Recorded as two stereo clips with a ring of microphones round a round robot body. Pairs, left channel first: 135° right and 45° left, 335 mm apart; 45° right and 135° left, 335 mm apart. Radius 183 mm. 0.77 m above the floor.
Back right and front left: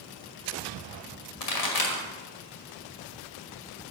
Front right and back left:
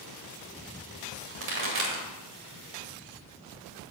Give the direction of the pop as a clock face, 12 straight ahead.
6 o'clock.